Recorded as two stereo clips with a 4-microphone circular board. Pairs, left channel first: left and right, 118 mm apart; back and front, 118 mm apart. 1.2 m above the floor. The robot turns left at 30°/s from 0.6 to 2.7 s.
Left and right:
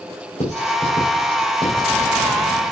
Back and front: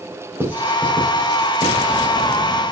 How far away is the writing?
About 2.5 m.